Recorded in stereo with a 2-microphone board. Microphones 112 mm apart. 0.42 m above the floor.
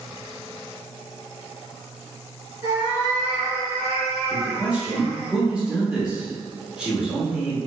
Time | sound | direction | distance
2.6 | a cat meowing | 40° right (ahead or behind) | 1.4 m
4.3 | a man speaking | 10° right (ahead or behind) | 1.0 m